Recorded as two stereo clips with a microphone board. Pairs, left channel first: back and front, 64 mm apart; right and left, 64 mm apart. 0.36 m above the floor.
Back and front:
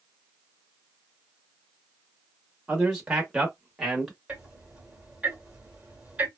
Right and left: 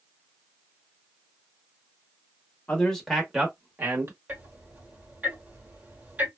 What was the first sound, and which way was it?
A man speaking, 55° right.